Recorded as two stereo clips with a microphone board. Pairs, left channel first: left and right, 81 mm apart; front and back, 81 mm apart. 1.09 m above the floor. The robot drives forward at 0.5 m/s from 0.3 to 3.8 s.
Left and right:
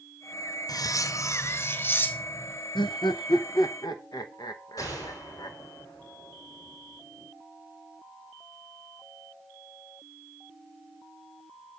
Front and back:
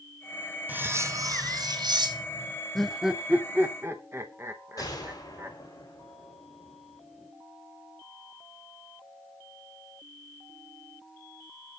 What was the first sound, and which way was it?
Cutlery clinking, 115° left.